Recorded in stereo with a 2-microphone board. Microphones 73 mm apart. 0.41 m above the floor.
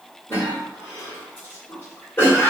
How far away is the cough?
About 1.5 m.